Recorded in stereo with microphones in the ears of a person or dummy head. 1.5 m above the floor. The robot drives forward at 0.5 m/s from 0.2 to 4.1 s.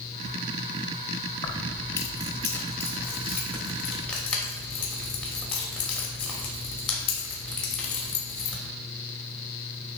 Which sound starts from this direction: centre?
Keys jangling, at 1.4 s.